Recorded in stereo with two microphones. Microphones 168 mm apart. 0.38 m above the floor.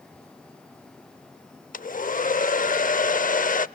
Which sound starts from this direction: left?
A hair dryer, at 1.7 s.